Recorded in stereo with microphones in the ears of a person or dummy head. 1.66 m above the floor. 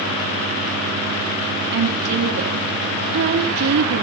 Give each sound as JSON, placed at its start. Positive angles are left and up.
{"t": 1.7, "sound": "a woman speaking", "side_deg": -65, "distance_m": 2.5}